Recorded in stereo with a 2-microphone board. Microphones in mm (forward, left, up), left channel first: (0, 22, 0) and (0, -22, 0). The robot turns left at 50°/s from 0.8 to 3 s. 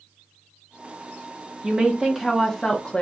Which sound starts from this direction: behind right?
A woman speaking, at 1.6 s.